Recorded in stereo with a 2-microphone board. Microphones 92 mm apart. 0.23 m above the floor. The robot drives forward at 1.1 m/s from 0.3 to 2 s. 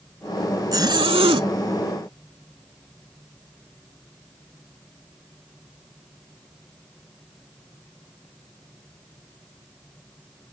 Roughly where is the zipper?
Right.